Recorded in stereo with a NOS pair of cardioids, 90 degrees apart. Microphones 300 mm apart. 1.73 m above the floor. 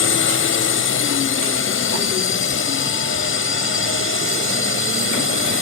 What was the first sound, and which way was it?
A drone, 45° left.